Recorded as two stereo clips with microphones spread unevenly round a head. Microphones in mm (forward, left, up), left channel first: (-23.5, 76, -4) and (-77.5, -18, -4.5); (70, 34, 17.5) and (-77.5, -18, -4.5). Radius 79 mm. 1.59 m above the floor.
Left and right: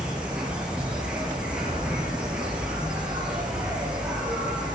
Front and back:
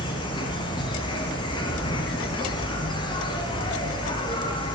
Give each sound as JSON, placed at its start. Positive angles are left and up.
{"t": 0.0, "sound": "an insect", "azimuth_deg": -35, "distance_m": 3.5}